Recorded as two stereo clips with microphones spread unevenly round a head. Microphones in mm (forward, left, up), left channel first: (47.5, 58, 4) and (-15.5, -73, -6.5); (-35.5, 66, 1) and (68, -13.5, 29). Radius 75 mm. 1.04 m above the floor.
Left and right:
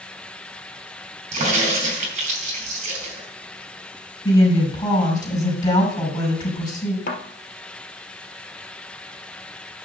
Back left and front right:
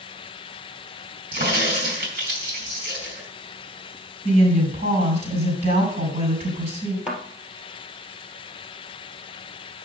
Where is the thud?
40° left, 2.5 m.